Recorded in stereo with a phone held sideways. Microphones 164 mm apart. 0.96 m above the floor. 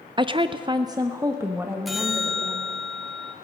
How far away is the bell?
About 0.9 m.